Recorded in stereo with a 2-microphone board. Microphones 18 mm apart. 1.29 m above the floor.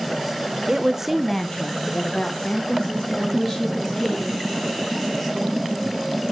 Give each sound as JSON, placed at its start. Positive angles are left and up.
{"t": 0.7, "sound": "a woman speaking", "side_deg": -45, "distance_m": 1.2}
{"t": 3.2, "sound": "a woman speaking", "side_deg": 10, "distance_m": 7.0}